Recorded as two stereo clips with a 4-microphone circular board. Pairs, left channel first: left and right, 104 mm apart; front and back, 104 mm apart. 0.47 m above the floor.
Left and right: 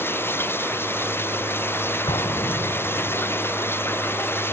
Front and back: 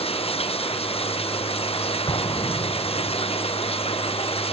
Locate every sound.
0.0 s running water: 20° left
2.1 s an explosion: 45° left